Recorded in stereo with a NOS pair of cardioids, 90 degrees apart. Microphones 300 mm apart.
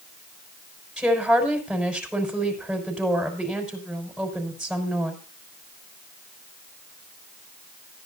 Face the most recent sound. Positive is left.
turn(degrees=-5)